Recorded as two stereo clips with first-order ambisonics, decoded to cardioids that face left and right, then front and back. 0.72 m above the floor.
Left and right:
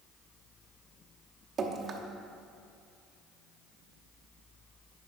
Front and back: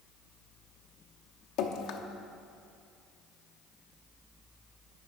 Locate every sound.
1.6 s dripping: 30° right, 0.7 m